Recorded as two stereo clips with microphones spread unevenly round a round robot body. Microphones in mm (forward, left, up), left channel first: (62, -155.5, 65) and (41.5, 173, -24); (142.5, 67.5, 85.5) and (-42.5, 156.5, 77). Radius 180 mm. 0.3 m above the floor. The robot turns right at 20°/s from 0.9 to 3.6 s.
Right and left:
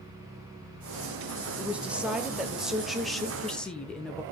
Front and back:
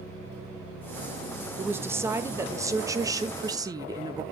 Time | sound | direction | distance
1.6 | a woman speaking | 100° left | 1.1 m